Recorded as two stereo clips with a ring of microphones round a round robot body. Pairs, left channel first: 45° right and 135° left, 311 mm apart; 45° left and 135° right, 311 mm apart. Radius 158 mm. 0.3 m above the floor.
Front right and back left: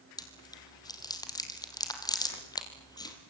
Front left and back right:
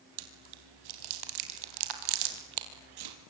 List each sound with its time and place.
0.2 s chewing: 125° right, 3.5 m